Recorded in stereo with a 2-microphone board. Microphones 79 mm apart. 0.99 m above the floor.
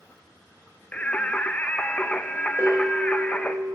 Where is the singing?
20° left (ahead or behind), 0.6 m.